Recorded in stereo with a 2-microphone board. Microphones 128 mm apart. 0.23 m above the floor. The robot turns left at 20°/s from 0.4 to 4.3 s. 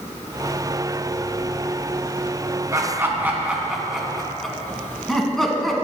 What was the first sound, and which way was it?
Laughter, 25° right (ahead or behind).